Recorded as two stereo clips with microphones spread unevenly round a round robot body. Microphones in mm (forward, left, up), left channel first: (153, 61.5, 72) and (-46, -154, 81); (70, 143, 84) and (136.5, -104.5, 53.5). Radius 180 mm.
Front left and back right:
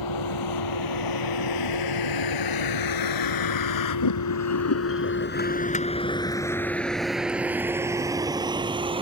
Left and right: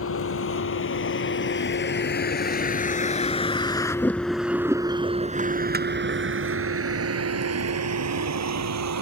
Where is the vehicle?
70° left; by 9.0 s 60° right.